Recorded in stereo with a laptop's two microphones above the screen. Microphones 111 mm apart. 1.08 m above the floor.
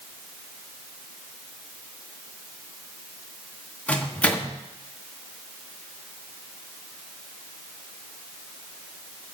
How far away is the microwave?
About 1.2 m.